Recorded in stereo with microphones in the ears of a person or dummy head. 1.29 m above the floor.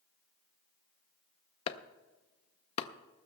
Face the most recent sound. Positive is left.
turn(degrees=30)  # may be behind; listen again after turning